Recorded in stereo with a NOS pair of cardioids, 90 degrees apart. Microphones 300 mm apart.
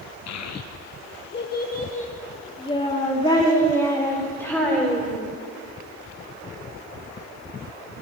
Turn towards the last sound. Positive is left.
turn(degrees=5)